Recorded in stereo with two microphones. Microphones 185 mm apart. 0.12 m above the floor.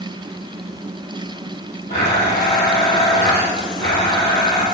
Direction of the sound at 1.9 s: 65° left (ahead or behind).